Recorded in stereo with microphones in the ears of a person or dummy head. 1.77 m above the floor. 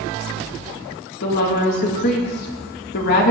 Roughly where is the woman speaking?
Left.